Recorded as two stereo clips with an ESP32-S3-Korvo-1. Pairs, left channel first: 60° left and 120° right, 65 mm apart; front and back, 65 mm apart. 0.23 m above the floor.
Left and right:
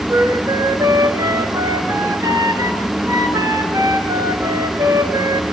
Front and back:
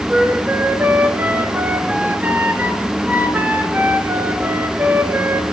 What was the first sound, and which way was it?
A flute, 120° right.